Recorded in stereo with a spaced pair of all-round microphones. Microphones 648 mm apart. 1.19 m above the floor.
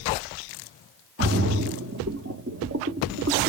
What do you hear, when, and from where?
1.2 s a splash: 25° right (ahead or behind), 0.7 m